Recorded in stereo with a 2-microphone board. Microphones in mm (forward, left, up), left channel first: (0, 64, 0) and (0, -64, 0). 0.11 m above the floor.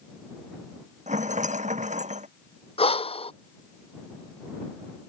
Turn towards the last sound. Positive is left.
turn(degrees=50)  # may be behind; listen again after turning